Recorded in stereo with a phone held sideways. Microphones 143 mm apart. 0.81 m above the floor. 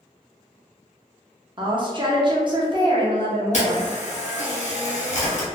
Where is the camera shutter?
55° left (ahead or behind), 1.1 m.